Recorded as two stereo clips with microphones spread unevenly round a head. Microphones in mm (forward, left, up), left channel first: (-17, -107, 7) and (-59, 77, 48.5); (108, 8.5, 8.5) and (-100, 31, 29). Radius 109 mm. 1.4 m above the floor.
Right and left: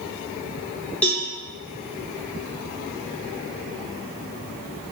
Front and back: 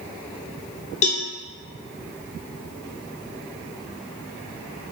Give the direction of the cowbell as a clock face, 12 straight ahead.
11 o'clock.